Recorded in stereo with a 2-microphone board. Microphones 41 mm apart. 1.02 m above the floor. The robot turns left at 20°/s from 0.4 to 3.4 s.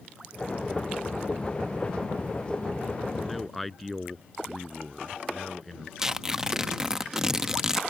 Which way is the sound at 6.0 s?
15° right (ahead or behind).